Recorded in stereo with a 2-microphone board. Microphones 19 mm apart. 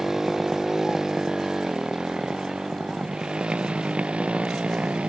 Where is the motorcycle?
25° right (ahead or behind); by 5.1 s 85° right.